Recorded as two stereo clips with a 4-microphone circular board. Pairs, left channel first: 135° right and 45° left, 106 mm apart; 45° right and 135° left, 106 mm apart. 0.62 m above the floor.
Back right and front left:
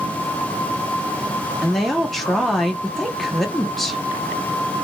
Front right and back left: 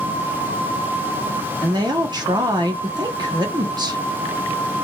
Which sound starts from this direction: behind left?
A woman speaking, at 1.6 s.